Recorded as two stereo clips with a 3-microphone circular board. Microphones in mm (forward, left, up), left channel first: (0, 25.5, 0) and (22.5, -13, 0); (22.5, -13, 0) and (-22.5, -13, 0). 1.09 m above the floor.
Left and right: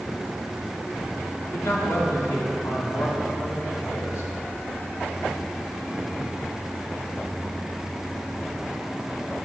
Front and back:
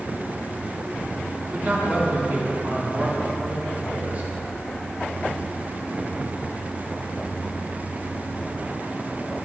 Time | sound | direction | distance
1.5 | a man speaking | 125° left | 2.0 m